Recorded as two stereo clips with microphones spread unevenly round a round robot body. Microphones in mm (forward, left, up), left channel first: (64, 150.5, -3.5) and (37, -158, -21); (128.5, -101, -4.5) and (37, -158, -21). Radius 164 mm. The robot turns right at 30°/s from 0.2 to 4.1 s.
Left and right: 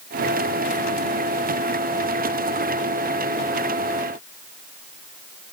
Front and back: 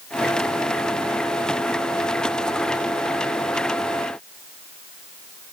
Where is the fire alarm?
No fire alarm in this recording.